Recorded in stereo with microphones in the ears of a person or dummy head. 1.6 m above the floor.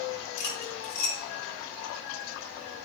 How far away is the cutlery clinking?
About 2.5 m.